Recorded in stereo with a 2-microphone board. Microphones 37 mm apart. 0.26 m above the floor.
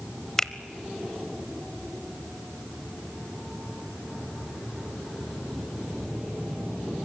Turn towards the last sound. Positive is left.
turn(degrees=20)  # may be behind; listen again after turning